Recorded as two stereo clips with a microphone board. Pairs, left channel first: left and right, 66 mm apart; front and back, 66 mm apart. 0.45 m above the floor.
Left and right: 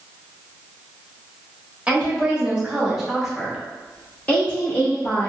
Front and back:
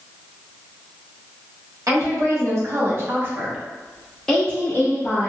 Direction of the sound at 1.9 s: 160° right.